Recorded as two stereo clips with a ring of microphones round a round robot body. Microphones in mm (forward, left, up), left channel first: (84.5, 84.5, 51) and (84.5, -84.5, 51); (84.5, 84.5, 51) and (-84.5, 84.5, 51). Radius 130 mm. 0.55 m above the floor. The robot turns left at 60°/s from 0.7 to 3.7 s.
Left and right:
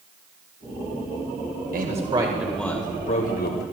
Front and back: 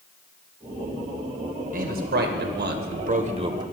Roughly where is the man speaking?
Behind right.